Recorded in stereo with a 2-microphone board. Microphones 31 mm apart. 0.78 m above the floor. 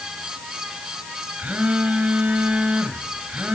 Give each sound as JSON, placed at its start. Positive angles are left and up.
{"t": 1.4, "sound": "a phone buzzing", "side_deg": -50, "distance_m": 3.0}